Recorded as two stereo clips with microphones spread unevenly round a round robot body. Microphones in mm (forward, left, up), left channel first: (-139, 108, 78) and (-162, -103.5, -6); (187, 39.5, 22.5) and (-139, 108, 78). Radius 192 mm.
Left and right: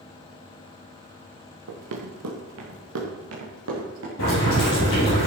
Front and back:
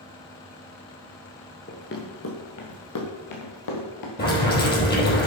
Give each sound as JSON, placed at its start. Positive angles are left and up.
{"t": 1.7, "sound": "running footsteps", "azimuth_deg": -80, "distance_m": 2.0}
{"t": 4.2, "sound": "boiling", "azimuth_deg": 50, "distance_m": 6.0}